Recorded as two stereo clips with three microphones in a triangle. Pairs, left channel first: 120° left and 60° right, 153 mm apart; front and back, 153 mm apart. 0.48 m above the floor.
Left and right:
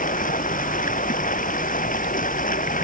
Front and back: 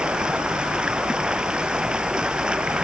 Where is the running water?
95° left.